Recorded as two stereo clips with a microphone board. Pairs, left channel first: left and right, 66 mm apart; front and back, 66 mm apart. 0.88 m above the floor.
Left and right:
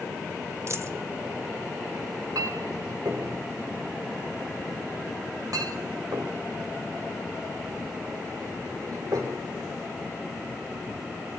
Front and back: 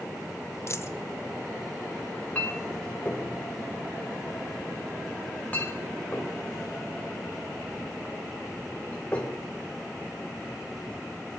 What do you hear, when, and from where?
0.7 s a dropped coin: 45° right, 1.3 m
2.4 s a clink: 65° right, 3 m